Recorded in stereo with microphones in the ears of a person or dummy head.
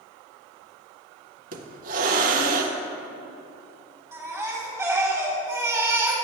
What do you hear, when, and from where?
1.5 s a hiss: 45° right (ahead or behind), 0.6 m
4.1 s a baby crying: 15° right (ahead or behind), 1.6 m